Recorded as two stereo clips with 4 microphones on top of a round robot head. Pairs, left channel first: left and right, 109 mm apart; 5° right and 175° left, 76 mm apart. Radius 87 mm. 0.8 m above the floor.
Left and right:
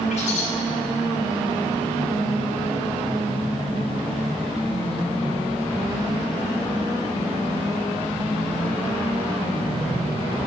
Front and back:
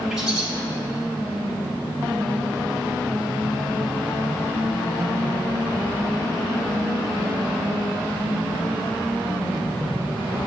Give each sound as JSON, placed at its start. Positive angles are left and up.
{"t": 0.1, "sound": "a bird", "azimuth_deg": 90, "distance_m": 3.5}